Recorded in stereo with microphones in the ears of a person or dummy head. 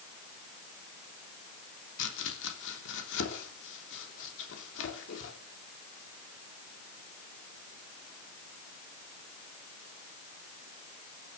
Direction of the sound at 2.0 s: 70° left (ahead or behind).